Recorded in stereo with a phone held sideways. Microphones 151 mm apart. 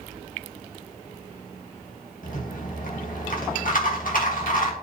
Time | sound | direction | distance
2.2 | a rattle | 65° left (ahead or behind) | 1.9 m